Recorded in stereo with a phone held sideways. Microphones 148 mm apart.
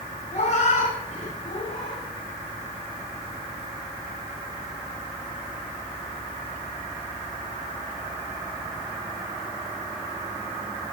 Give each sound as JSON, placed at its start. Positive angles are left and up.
{"t": 0.3, "sound": "a cat meowing", "side_deg": 50, "distance_m": 7.0}